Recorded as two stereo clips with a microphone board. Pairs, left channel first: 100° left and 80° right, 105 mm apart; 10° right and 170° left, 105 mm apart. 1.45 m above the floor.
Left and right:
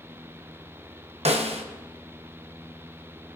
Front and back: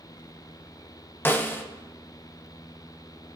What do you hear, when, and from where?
1.2 s a snare drum: 85° right, 1.0 m